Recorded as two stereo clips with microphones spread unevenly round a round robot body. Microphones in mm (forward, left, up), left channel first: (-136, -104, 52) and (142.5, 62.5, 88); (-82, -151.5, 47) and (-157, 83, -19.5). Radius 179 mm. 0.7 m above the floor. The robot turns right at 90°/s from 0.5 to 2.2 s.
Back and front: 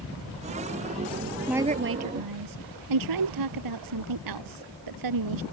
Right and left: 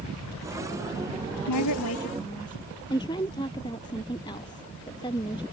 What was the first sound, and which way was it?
A woman speaking, 60° right.